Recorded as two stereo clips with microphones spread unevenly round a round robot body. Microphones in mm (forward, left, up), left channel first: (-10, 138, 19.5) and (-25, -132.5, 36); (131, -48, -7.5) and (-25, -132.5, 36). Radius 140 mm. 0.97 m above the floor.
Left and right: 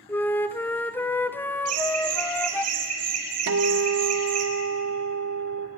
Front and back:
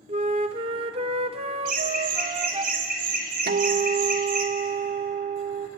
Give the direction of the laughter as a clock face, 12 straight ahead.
4 o'clock.